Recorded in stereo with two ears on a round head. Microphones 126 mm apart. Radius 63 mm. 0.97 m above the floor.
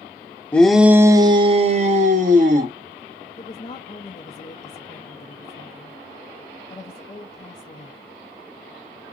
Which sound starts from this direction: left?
A woman speaking, at 3.4 s.